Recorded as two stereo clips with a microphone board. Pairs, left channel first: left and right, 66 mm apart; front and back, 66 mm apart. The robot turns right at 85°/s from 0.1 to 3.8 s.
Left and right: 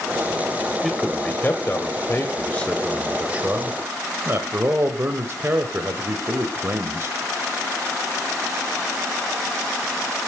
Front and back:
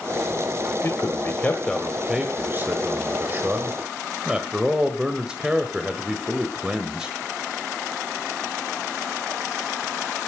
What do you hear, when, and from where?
0.8 s a man speaking: straight ahead, 1.4 m; by 7.2 s 110° right, 1.4 m